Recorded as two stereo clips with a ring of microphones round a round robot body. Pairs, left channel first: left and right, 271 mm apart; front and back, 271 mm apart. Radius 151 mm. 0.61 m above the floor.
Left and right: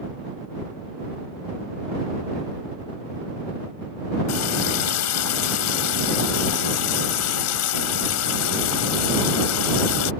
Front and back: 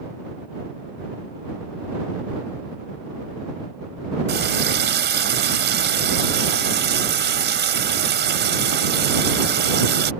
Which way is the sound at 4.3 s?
130° left.